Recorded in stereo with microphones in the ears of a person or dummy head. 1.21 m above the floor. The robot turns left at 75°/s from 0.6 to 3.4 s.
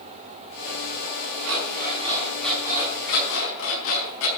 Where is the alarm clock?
105° right, 5 m; by 4.3 s 105° left, 5 m.